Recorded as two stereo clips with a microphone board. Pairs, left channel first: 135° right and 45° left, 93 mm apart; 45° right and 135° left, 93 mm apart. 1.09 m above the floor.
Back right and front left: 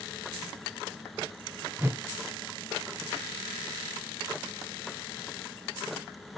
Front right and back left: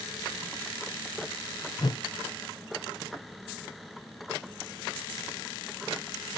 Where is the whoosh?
20° right, 0.6 m.